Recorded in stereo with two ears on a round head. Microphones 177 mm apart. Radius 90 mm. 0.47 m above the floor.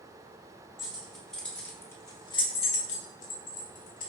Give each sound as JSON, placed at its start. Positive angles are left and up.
{"t": 0.8, "sound": "keys jangling", "side_deg": -5, "distance_m": 1.2}